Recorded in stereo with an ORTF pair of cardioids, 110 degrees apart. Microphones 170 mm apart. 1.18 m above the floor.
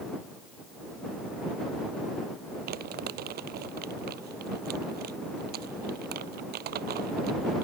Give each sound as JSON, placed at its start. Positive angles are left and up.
{"t": 2.7, "sound": "crumpling", "azimuth_deg": -70}